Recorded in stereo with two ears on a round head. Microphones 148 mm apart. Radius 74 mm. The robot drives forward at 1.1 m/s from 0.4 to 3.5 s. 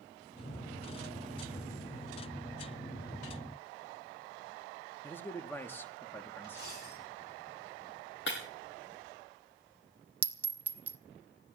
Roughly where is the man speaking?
Centre.